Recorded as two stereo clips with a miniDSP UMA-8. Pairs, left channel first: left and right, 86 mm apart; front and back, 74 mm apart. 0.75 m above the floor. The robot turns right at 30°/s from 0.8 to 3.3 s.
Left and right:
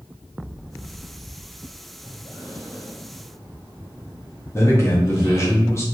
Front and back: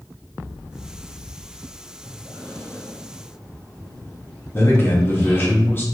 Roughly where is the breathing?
Ahead left.